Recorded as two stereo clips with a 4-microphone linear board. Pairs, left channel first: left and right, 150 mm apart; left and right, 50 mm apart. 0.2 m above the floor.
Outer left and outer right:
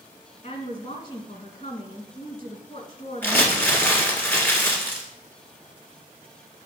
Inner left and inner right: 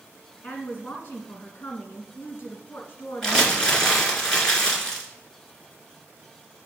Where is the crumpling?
15° left (ahead or behind), 1.8 m.